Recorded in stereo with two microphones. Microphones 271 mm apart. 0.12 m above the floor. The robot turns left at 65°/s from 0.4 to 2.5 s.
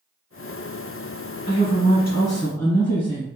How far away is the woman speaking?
About 1.8 m.